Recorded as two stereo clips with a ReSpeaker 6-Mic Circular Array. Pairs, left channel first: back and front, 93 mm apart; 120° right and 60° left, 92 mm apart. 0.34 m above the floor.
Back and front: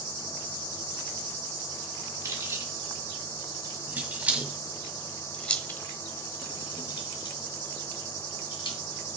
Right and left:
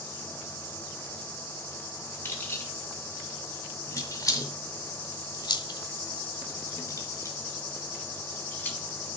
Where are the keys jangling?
55° right, 2.5 m; by 8.8 s 170° left, 2 m.